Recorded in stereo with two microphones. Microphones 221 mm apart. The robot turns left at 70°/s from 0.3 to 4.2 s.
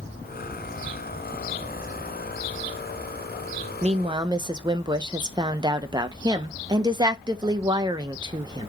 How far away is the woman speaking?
About 0.5 m.